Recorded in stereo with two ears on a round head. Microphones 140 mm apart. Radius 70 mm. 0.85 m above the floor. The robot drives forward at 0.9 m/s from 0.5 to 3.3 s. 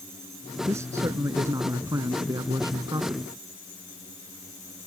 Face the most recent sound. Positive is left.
turn(degrees=-20)  # may be behind; listen again after turning